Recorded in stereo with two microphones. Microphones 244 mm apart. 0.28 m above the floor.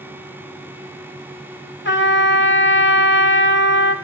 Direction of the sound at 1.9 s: 50° left (ahead or behind).